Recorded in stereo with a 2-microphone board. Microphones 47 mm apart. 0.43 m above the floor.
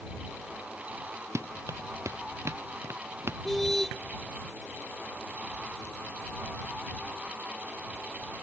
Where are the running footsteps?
80° right; by 3.4 s 60° right (ahead or behind).